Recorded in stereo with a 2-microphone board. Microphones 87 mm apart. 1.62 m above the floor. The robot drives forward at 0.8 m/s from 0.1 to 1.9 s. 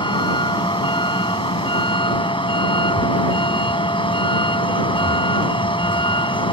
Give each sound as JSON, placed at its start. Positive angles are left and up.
{"t": 0.0, "sound": "a vehicle", "side_deg": 70}